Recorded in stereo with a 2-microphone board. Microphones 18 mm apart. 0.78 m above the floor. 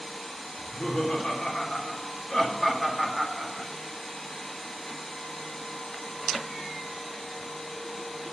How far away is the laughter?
About 3.5 m.